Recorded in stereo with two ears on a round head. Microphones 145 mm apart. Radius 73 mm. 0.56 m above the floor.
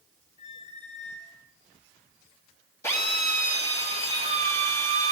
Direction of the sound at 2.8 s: 20° left (ahead or behind).